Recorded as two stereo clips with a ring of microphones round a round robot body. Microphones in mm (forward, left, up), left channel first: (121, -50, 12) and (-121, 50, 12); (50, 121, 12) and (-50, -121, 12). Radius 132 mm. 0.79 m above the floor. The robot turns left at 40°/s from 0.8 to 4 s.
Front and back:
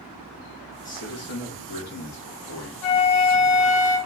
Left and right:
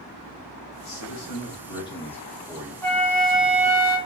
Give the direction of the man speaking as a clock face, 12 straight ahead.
11 o'clock.